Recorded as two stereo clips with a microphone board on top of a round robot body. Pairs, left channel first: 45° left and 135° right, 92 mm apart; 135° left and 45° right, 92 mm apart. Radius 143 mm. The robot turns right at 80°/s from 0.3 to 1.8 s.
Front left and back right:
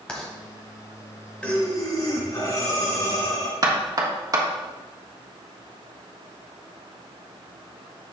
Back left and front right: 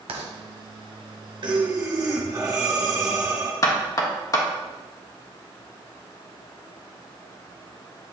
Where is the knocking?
Straight behind, 1.5 m.